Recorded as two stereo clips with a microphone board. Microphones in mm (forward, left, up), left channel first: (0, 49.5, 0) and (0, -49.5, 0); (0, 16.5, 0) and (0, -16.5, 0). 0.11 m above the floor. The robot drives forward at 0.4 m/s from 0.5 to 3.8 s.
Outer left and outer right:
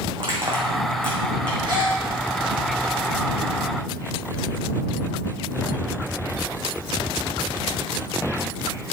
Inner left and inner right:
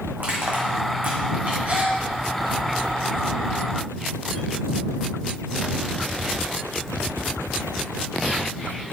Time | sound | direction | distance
0.2 | crushing | 60° right (ahead or behind) | 3 m
1.6 | a gasp | 50° right (ahead or behind) | 4 m